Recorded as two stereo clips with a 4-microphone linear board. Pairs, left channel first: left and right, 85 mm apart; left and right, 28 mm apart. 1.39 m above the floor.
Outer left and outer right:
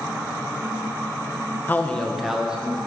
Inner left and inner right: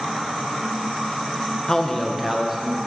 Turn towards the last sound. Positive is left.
turn(degrees=-15)  # may be behind; listen again after turning